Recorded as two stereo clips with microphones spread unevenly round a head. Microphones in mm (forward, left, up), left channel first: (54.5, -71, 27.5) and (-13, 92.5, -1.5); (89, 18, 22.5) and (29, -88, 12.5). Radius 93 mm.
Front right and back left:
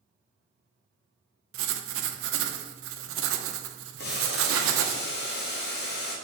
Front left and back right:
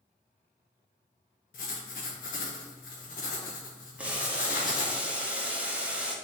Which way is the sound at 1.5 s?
105° left.